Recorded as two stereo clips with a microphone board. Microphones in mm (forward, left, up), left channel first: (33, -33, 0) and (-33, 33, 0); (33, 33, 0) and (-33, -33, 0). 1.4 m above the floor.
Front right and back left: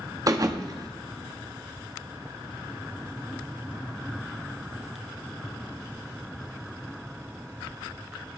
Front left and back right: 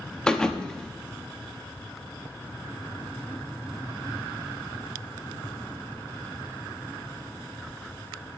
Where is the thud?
120° left, 1.0 m.